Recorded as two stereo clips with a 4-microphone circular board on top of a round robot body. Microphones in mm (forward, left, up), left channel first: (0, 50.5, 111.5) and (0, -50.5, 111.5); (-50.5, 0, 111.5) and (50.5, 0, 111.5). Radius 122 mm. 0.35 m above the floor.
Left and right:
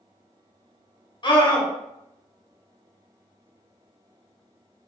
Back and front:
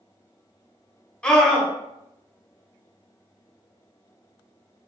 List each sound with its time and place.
1.2 s a scream: 100° left, 1.2 m